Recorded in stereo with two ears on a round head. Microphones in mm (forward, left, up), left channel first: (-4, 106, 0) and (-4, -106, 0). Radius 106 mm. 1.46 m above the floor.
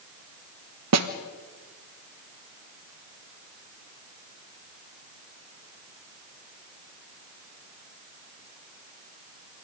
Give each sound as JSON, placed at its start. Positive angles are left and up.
{"t": 0.9, "sound": "a snare drum", "side_deg": -75, "distance_m": 1.4}